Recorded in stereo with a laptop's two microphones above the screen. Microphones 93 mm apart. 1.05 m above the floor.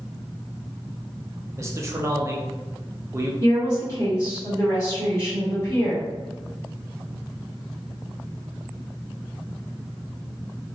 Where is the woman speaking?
25° left (ahead or behind), 1.5 m.